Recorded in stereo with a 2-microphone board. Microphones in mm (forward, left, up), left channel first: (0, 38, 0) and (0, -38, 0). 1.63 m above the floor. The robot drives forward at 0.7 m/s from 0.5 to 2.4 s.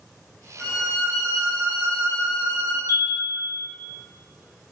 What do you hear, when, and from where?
0.6 s a violin: 40° left (ahead or behind), 1.2 m; by 2.8 s 20° left (ahead or behind), 2 m
2.9 s a chime: 45° left (ahead or behind), 0.6 m